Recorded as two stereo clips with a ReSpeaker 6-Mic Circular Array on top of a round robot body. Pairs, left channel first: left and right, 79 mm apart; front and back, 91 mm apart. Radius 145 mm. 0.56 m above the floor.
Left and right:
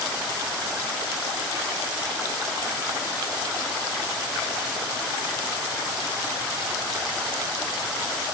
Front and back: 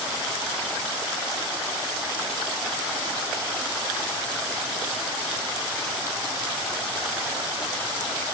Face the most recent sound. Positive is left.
No sound to turn to.